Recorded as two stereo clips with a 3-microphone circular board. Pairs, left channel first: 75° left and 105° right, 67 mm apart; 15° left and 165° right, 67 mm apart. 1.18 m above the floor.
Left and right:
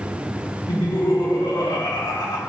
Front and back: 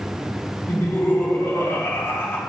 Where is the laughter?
70° left, 2.5 m.